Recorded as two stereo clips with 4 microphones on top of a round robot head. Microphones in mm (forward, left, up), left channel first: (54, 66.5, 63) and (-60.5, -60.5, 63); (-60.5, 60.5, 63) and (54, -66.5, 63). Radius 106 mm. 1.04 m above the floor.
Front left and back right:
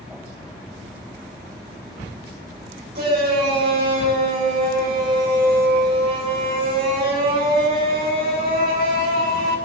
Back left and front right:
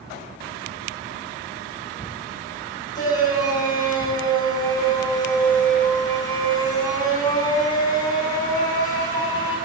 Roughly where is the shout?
Behind.